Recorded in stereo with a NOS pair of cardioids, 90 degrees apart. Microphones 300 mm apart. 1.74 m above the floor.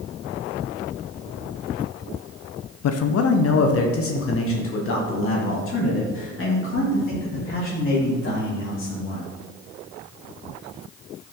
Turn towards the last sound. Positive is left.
turn(degrees=40)